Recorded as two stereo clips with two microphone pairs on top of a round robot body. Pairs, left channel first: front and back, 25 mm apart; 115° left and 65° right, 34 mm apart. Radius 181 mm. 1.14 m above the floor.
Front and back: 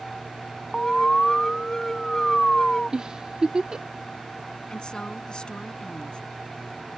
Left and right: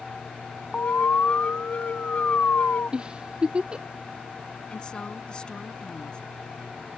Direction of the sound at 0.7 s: 70° left.